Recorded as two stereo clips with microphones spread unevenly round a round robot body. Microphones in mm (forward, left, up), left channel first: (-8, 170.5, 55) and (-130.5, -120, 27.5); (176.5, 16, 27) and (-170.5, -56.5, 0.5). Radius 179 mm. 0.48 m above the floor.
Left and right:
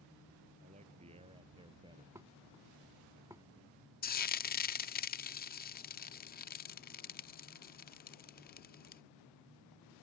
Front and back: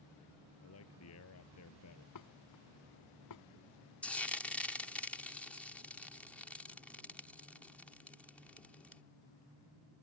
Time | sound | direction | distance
0.6 | a man speaking | 40° right | ?
2.1 | dishes clattering | 30° right | ?
4.0 | frying | 105° left | ?